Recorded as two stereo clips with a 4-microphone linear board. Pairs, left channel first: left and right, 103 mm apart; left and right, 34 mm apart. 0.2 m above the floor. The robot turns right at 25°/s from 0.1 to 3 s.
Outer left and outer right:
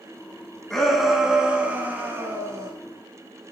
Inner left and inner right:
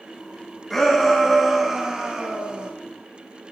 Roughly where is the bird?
I don't hear a bird.